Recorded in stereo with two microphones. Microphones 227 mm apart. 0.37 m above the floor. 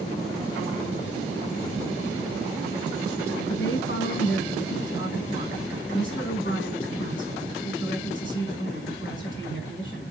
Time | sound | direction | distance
3.5 | a woman speaking | 55° left (ahead or behind) | 4 m